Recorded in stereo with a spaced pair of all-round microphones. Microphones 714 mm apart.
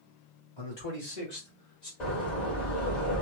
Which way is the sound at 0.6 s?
45° left (ahead or behind).